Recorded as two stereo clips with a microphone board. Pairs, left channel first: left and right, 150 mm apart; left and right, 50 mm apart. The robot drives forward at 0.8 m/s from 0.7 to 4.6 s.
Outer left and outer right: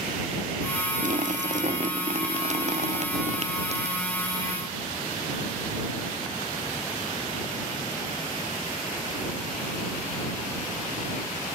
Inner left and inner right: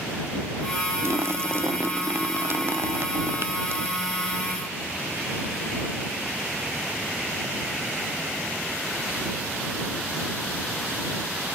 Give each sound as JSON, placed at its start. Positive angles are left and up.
{"t": 1.0, "sound": "a splash", "side_deg": -55}